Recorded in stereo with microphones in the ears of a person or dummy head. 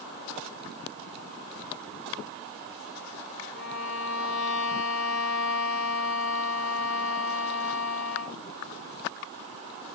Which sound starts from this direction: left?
A violin, at 3.5 s.